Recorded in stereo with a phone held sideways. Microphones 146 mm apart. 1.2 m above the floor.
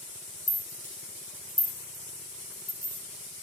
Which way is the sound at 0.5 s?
70° left (ahead or behind).